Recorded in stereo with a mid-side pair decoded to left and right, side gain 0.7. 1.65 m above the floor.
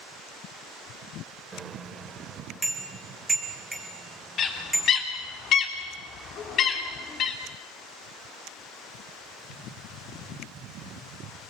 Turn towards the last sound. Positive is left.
turn(degrees=45)